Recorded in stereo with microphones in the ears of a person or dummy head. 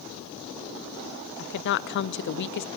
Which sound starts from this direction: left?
A woman speaking, at 1.4 s.